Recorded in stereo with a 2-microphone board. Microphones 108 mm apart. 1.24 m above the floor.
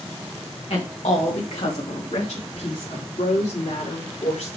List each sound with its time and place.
0.7 s a woman speaking: 65° left (ahead or behind), 1.6 m; by 4.5 s 85° left, 5.5 m